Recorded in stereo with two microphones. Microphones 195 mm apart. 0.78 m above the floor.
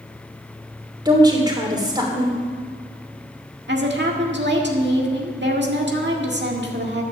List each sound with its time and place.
1.1 s a woman speaking: 20° right (ahead or behind), 3 m
3.7 s a woman speaking: 60° right (ahead or behind), 1.7 m